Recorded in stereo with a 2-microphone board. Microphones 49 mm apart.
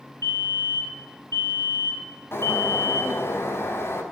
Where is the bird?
55° left (ahead or behind), 5 m.